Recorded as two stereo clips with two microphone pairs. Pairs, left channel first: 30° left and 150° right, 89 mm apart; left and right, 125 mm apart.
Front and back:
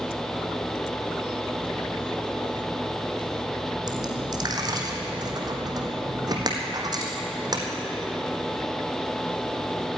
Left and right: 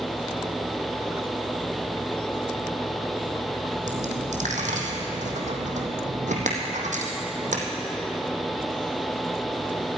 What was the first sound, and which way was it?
A dropped coin, 110° right.